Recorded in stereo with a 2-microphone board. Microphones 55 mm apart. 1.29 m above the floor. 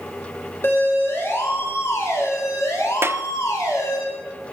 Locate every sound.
0.6 s a siren: 40° left (ahead or behind), 7.5 m; by 4.0 s 75° left (ahead or behind), 7 m
3.0 s a clap: 45° right (ahead or behind), 0.7 m